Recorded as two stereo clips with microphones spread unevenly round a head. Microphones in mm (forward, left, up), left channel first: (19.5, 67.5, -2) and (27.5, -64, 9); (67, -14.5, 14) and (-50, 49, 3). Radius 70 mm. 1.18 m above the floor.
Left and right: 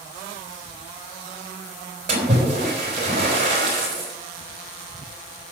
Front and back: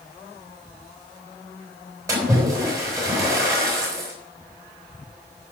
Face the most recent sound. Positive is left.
turn(degrees=-135)